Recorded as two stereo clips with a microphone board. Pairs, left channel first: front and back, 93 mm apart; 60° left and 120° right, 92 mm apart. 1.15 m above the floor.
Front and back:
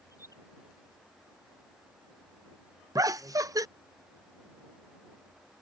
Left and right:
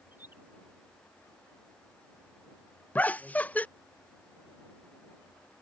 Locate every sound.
0.1 s a bird: 50° right
3.0 s laughter: 130° left